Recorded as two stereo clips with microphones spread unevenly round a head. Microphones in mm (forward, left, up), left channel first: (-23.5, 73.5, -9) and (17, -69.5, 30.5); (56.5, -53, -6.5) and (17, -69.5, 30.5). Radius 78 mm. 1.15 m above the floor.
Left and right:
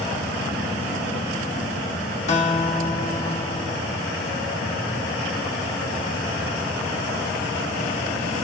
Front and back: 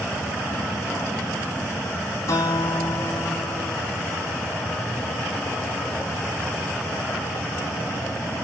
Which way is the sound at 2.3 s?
55° left.